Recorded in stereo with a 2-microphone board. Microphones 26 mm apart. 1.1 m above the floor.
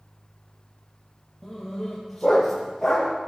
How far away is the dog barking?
About 6.5 m.